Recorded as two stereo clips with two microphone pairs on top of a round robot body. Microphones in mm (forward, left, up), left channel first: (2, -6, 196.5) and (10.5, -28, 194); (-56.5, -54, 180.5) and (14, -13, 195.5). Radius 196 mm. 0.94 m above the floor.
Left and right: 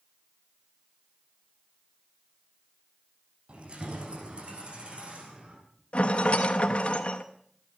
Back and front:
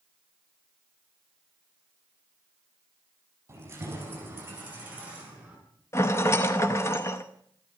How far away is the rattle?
About 0.6 m.